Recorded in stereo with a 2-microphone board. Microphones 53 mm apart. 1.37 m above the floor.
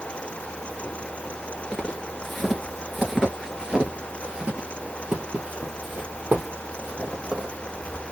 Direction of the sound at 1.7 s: 15° left (ahead or behind).